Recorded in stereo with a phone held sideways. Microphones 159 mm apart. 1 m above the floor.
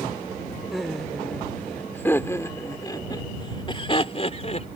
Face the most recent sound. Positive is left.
turn(degrees=45)  # may be behind; listen again after turning